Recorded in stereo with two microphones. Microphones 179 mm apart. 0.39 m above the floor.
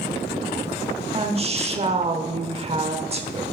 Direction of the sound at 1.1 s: 35° right (ahead or behind).